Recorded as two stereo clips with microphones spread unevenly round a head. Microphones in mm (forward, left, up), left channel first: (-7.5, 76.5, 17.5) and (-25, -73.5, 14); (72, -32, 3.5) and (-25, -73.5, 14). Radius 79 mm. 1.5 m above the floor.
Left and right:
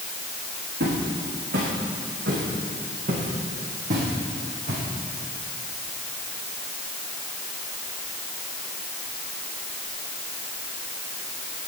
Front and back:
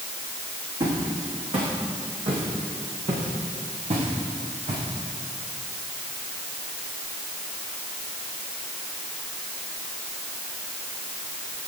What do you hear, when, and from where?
0.8 s footsteps: 125° right, 6.5 m; by 4.8 s 140° right, 5.5 m